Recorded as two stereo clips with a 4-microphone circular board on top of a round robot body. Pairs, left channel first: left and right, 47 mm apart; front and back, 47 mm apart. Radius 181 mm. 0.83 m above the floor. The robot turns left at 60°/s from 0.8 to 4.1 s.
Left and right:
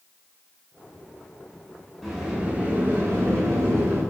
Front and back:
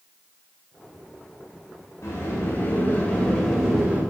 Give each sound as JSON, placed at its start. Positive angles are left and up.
{"t": 2.0, "sound": "a sliding door", "azimuth_deg": 5, "distance_m": 9.0}